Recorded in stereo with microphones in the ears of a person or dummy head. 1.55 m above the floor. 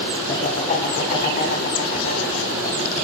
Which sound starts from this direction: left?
Laughter, at 0.3 s.